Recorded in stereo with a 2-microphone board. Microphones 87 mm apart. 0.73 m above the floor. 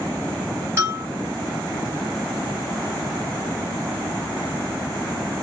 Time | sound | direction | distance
0.8 | a bell | 30° right (ahead or behind) | 3 m